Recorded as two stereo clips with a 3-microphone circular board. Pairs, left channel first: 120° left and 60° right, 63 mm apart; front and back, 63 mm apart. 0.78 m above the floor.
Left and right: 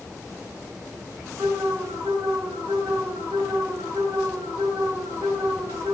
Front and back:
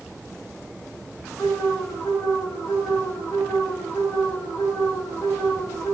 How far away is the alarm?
About 10 m.